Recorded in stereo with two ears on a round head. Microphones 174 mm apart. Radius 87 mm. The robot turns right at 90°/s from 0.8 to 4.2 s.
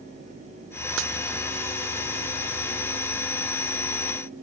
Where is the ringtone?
No ringtone in this recording.